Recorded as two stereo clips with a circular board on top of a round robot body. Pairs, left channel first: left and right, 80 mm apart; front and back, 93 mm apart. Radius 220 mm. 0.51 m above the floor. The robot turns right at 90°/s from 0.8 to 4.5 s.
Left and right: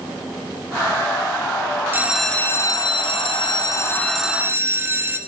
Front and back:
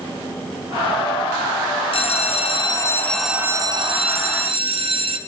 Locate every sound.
1.9 s a bell: 25° right, 0.8 m; by 5.2 s 155° right, 0.8 m